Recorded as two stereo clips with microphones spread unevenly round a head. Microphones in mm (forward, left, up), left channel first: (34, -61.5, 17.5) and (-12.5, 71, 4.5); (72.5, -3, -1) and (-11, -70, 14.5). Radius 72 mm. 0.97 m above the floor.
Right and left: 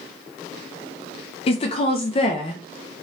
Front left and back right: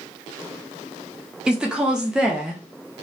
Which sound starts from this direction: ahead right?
A woman speaking, at 1.5 s.